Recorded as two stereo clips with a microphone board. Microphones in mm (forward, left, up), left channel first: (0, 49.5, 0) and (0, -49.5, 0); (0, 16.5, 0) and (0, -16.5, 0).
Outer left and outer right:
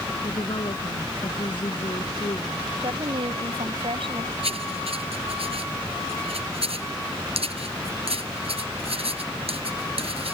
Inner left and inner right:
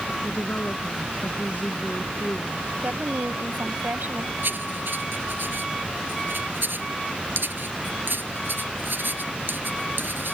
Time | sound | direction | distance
0.2 | a woman speaking | 55° left (ahead or behind) | ?
2.8 | a woman speaking | 65° right (ahead or behind) | ?
4.4 | writing | 75° right (ahead or behind) | ?